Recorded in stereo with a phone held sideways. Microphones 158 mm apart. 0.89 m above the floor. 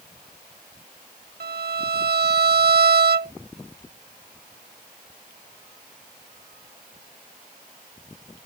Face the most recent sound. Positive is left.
turn(degrees=-80)